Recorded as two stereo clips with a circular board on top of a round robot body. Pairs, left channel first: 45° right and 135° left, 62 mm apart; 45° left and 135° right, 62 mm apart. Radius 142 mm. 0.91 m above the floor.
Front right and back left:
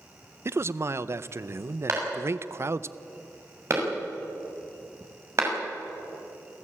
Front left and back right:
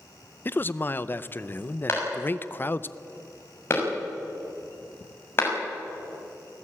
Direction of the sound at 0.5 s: 95° left.